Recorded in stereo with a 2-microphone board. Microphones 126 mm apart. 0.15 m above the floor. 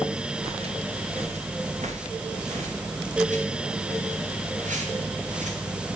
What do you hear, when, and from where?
0.4 s footsteps: 50° right (ahead or behind), 3 m; by 5.5 s 85° right, 5 m